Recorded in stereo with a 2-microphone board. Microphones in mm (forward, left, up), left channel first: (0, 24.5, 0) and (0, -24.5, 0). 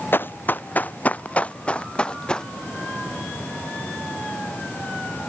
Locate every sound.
0.1 s running footsteps: 50° left (ahead or behind); by 2.5 s 15° left (ahead or behind)